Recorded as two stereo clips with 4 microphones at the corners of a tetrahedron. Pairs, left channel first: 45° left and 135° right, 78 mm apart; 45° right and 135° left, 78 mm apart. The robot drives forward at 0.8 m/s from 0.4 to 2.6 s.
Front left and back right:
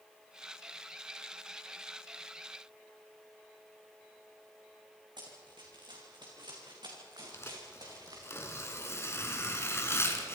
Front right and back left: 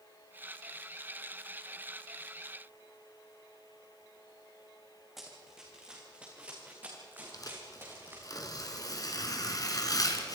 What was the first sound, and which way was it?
Running footsteps, 140° right.